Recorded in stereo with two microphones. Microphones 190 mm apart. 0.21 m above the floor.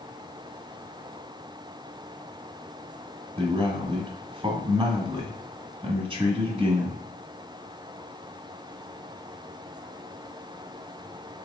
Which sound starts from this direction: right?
A man speaking, at 3.4 s.